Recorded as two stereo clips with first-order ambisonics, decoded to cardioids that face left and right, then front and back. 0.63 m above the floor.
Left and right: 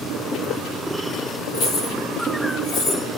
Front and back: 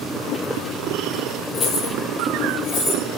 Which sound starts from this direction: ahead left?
Keys jangling, at 1.5 s.